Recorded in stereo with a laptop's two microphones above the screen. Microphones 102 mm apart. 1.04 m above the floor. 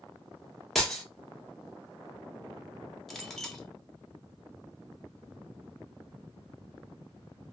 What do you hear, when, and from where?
0.8 s breaking glass: 5° left (ahead or behind), 0.7 m
3.1 s a clink: 5° left (ahead or behind), 0.7 m